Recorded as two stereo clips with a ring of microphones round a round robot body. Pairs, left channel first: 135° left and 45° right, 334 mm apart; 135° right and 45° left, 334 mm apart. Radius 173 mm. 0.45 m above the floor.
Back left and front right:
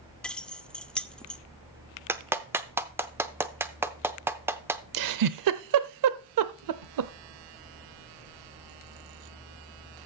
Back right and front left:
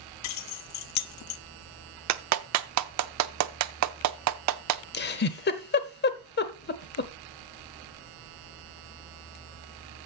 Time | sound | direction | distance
0.2 | keys jangling | 140° right | 0.5 m
2.1 | a clap | 35° left | 0.7 m
4.9 | a giggle | 75° right | 0.8 m